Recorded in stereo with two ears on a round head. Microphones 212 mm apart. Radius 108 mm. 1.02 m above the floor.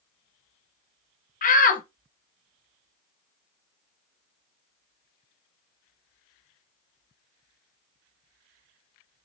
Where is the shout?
35° left (ahead or behind), 0.9 m.